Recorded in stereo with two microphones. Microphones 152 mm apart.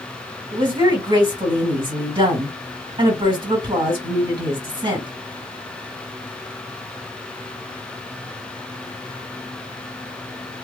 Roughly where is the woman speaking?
Right.